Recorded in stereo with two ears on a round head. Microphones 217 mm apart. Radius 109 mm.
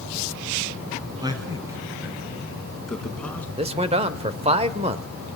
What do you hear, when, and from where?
1.2 s a man speaking: 20° right (ahead or behind), 5 m; by 3.5 s 10° left (ahead or behind), 5 m
3.6 s a man speaking: 25° right (ahead or behind), 1.3 m